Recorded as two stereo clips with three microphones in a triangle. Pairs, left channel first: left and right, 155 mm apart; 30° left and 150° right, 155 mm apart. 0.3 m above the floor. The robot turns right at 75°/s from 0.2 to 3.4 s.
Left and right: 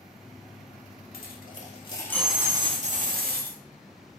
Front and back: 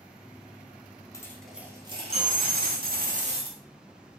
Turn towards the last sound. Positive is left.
turn(degrees=-95)